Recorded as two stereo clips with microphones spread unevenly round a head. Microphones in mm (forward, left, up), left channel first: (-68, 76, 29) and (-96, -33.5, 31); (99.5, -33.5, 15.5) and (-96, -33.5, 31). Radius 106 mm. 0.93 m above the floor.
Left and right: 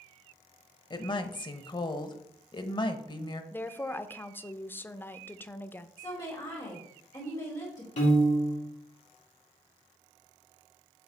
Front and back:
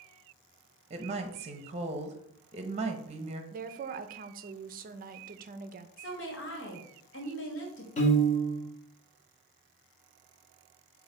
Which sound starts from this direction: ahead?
A woman speaking, at 6.0 s.